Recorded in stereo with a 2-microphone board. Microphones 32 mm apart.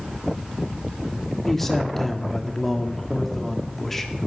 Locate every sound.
1.4 s a man speaking: 5° left (ahead or behind), 1.5 m